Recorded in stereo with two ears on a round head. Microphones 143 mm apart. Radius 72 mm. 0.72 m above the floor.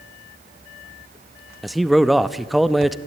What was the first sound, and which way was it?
A man speaking, centre (ahead or behind).